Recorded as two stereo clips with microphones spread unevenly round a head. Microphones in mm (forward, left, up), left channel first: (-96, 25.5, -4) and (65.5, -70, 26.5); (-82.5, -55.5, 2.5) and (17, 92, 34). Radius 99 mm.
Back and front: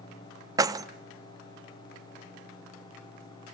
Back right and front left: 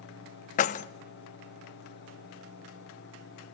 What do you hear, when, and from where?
0.6 s keys jangling: 80° right, 0.5 m